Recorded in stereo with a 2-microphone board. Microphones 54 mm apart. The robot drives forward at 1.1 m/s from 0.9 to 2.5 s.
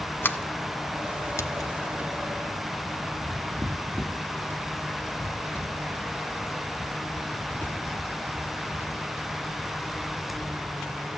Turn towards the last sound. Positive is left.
turn(degrees=35)  # may be behind; listen again after turning